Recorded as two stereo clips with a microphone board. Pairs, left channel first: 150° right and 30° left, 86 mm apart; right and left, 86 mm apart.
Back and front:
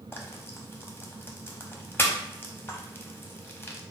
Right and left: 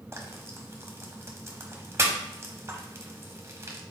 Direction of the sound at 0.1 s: 145° left.